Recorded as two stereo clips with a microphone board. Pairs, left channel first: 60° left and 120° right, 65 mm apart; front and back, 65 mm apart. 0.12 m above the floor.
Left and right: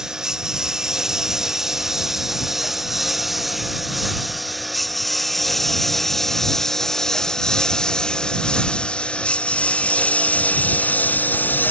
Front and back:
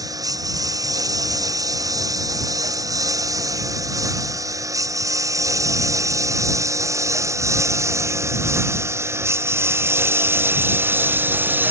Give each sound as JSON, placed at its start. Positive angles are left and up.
{"t": 0.0, "sound": "a lawn mower", "azimuth_deg": 160}